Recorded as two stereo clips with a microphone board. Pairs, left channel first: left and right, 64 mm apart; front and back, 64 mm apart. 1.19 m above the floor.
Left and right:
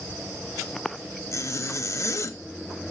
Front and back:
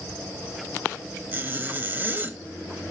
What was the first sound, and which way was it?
A zipper, 125° left.